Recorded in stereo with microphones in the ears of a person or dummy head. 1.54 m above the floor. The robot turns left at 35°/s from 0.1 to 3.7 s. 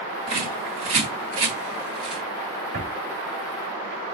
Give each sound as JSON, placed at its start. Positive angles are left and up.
{"t": 0.3, "sound": "a bird", "side_deg": -30, "distance_m": 1.4}
{"t": 2.7, "sound": "a drawer", "side_deg": -60, "distance_m": 1.8}